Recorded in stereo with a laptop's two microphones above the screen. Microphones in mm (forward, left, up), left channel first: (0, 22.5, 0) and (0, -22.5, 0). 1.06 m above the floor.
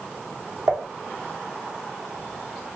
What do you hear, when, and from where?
0.7 s dishes clattering: 65° right (ahead or behind), 1.9 m